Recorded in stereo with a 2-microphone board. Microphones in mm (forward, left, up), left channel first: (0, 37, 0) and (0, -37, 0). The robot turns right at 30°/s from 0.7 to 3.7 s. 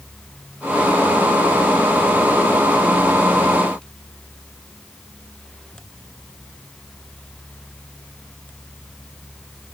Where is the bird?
I don't hear a bird.